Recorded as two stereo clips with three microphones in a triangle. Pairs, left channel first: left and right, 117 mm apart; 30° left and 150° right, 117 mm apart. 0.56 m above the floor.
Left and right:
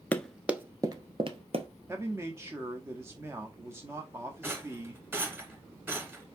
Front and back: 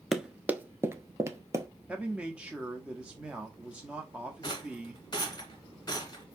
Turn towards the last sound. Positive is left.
turn(degrees=-20)